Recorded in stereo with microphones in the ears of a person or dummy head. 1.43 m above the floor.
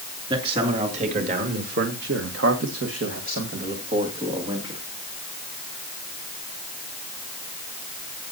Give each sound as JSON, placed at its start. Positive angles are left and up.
{"t": 0.3, "sound": "a man speaking", "side_deg": -35, "distance_m": 3.0}